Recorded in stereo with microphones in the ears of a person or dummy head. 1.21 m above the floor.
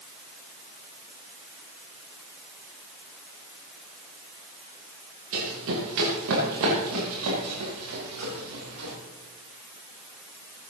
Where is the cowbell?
I don't hear a cowbell.